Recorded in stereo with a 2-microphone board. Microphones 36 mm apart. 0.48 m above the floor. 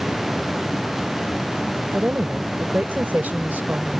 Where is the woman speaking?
60° right (ahead or behind).